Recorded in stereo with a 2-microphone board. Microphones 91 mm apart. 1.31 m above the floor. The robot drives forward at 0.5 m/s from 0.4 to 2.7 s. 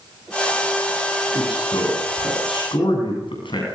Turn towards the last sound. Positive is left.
turn(degrees=75)  # may be behind; listen again after turning